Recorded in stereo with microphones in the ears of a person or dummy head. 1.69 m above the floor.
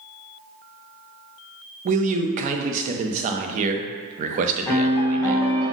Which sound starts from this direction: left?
A piano, at 4.7 s.